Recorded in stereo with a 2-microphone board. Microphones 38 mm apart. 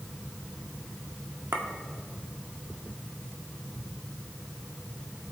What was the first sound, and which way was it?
A clink, 75° right (ahead or behind).